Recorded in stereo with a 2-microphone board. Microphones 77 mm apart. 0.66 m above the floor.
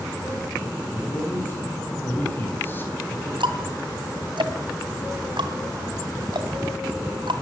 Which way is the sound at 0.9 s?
25° left (ahead or behind).